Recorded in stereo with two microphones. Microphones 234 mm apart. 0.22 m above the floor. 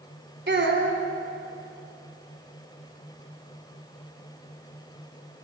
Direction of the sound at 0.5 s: 50° right (ahead or behind).